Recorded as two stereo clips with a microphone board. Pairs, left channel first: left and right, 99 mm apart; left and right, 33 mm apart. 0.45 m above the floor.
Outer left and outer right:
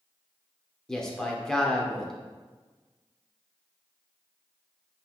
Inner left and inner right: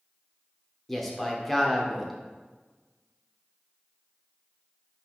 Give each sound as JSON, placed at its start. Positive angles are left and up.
{"t": 0.9, "sound": "a man speaking", "side_deg": 5, "distance_m": 0.8}